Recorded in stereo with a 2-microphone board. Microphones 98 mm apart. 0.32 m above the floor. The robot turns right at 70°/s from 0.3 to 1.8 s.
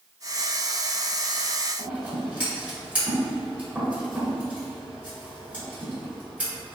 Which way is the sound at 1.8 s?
15° right (ahead or behind).